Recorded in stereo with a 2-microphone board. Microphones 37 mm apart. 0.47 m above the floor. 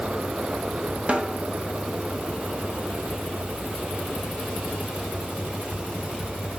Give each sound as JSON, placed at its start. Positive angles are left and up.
{"t": 1.1, "sound": "a snare drum", "side_deg": -35, "distance_m": 0.6}